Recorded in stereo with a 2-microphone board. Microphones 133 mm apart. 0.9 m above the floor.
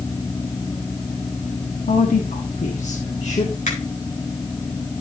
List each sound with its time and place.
1.9 s a woman speaking: 75° left (ahead or behind), 1.5 m; by 3.5 s 55° left (ahead or behind), 1.9 m
3.7 s a finger snap: 70° left (ahead or behind), 4 m